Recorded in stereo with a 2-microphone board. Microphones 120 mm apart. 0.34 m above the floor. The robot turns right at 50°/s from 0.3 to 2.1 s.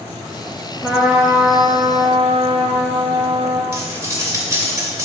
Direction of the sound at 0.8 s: Straight behind.